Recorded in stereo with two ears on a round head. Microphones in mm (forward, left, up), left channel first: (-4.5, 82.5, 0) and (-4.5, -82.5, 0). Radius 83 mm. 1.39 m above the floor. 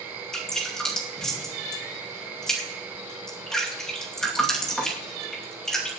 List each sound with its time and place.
0.3 s dripping: 5° left (ahead or behind), 2.5 m